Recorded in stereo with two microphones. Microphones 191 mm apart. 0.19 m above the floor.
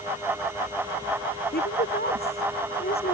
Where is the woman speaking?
65° left (ahead or behind).